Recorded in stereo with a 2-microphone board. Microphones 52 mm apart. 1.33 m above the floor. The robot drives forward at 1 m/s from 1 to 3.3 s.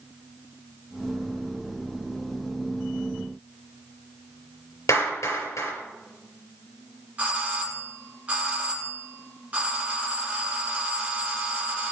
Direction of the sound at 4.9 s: 75° left (ahead or behind).